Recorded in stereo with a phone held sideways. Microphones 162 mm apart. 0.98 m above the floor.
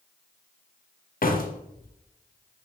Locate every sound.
1.2 s a door slam: 60° left (ahead or behind), 0.6 m